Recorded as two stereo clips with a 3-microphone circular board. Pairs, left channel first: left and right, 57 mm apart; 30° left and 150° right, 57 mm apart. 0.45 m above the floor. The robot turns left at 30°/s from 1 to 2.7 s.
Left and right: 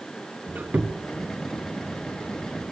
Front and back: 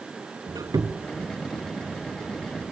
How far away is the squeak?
About 1.8 m.